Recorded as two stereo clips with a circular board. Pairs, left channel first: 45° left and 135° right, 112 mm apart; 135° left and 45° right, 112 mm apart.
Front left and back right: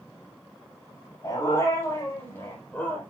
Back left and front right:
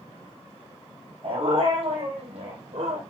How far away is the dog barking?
About 5.5 m.